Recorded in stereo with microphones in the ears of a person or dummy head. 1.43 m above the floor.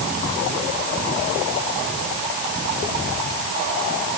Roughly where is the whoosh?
No whoosh in this recording.